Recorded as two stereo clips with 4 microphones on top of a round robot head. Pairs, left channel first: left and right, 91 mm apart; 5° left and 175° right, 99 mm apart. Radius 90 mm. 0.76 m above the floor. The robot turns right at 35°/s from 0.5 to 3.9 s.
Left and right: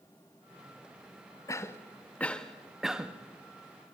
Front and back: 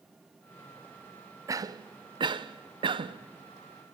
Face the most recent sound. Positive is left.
turn(degrees=-140)